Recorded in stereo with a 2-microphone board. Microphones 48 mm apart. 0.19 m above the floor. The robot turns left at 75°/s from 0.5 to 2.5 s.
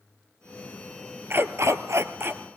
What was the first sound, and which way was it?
A dog barking, 50° right.